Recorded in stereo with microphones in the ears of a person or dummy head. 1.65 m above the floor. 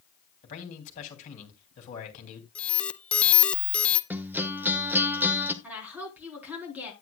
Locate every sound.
0.4 s a man speaking: 45° left (ahead or behind), 3 m
2.5 s an alarm: 10° left (ahead or behind), 0.7 m
4.1 s a guitar: 10° right (ahead or behind), 1.0 m
5.6 s a woman speaking: 10° right (ahead or behind), 4 m